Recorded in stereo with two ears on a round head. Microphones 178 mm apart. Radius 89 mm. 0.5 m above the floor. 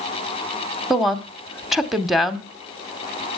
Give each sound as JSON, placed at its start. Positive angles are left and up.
{"t": 0.9, "sound": "a woman speaking", "side_deg": 0, "distance_m": 0.9}